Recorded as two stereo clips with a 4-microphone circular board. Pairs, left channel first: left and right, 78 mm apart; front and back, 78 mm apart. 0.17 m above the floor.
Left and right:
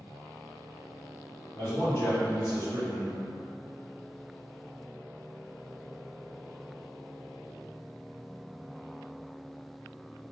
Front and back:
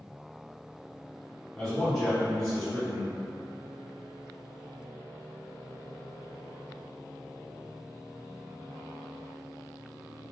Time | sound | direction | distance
1.6 | a man speaking | 75° left | 1.6 m